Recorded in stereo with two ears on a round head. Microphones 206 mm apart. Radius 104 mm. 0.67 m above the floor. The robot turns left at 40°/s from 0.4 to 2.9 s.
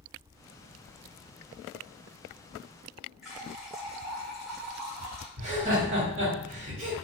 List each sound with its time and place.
3.2 s a running tap: centre (ahead or behind), 1.4 m
5.4 s laughter: 30° right (ahead or behind), 1.1 m